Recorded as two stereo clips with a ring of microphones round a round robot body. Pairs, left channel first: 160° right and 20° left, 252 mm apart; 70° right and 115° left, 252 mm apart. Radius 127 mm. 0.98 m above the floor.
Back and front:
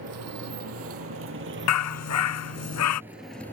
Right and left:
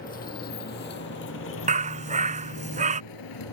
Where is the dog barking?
175° left.